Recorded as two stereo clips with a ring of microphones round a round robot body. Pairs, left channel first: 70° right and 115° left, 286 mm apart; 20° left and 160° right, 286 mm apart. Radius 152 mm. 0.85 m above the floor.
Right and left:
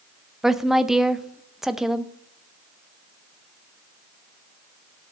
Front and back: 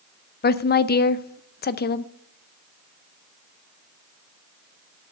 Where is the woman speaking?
25° left, 0.6 m.